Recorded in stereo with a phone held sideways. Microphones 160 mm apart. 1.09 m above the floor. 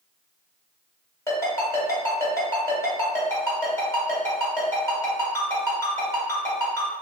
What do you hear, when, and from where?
1.3 s a ringtone: 20° left (ahead or behind), 1.5 m